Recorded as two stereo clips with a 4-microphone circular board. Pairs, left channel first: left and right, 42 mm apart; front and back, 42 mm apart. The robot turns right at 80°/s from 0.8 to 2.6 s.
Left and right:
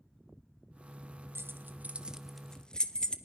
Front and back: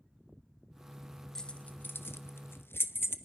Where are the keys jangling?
80° right, 1.0 m; by 3.2 s 20° left, 1.0 m.